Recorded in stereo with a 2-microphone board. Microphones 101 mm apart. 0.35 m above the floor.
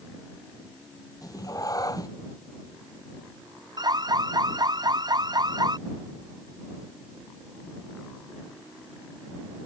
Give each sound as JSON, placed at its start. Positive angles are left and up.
{"t": 1.2, "sound": "a cat meowing", "side_deg": 35}
{"t": 3.8, "sound": "an alarm", "side_deg": -45}